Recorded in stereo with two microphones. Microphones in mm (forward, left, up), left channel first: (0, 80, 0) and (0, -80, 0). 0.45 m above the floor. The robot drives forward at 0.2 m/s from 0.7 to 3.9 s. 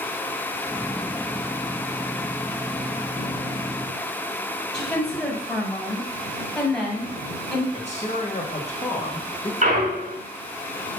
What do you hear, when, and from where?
4.7 s a woman speaking: 5° left (ahead or behind), 2.5 m
7.7 s a man speaking: 45° left (ahead or behind), 1.8 m
9.6 s a clunk: 50° right (ahead or behind), 1.9 m